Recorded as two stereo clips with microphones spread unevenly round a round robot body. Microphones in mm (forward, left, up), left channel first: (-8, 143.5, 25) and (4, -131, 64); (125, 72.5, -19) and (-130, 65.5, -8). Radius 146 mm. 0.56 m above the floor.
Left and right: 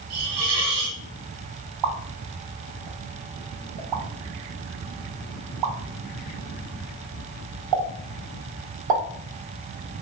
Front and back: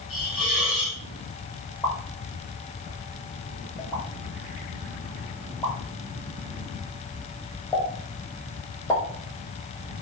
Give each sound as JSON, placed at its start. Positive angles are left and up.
{"t": 0.1, "sound": "a hiss", "azimuth_deg": -40, "distance_m": 2.0}
{"t": 1.8, "sound": "a pop", "azimuth_deg": -80, "distance_m": 0.8}